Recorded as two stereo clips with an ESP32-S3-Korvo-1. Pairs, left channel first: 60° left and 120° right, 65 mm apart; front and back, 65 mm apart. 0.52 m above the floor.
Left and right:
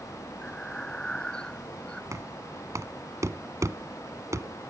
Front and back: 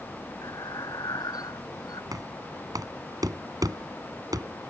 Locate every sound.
0.4 s breathing: 20° right
2.1 s knocking: 160° right